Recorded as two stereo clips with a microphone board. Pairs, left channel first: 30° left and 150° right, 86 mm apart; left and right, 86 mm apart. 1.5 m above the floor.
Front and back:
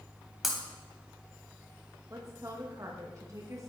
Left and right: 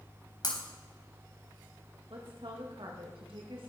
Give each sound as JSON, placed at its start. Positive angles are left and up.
{"t": 0.4, "sound": "breaking glass", "azimuth_deg": 125, "distance_m": 3.0}
{"t": 2.1, "sound": "a woman speaking", "azimuth_deg": -100, "distance_m": 2.0}